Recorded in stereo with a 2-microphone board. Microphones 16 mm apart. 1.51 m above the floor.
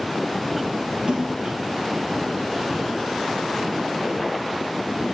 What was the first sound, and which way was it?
A splash, 75° right (ahead or behind).